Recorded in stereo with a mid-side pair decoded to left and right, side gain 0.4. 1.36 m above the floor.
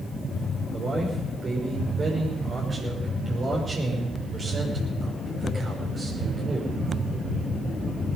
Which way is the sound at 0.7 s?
40° right.